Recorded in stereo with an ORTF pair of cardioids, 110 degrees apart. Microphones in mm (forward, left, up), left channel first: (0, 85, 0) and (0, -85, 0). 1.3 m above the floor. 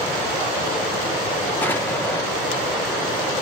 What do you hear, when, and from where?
1.6 s an explosion: 10° left, 0.9 m